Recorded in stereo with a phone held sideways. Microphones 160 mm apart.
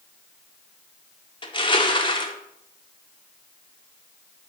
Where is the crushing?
30° left (ahead or behind), 0.7 m.